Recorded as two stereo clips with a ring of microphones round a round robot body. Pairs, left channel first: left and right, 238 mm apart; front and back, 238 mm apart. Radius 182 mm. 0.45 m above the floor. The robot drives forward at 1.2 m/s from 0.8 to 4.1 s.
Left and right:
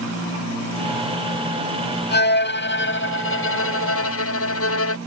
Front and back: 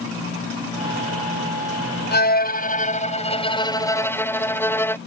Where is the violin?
45° left; by 5.0 s 80° left.